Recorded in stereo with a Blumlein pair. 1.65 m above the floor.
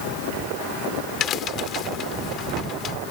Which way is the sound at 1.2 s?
30° left.